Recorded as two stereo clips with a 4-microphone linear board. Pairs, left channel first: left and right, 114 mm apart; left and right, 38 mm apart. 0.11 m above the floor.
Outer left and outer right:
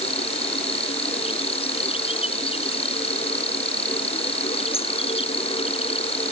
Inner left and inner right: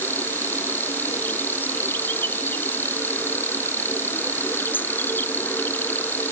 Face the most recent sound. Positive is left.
turn(degrees=60)  # may be behind; listen again after turning